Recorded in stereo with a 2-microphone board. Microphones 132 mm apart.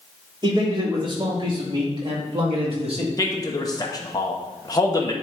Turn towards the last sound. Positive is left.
turn(degrees=30)  # may be behind; listen again after turning